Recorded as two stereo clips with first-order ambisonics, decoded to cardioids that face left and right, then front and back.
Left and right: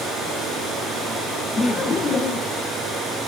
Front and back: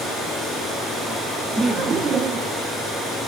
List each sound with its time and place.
1.6 s laughter: 115° left, 0.7 m; by 2.6 s 135° left, 1.0 m